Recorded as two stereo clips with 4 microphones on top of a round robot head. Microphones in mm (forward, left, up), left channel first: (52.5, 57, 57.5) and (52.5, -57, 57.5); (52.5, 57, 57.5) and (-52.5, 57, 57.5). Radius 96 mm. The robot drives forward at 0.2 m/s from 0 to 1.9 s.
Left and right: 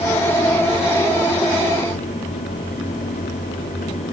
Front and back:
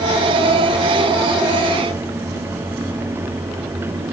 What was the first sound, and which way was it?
Only background noise.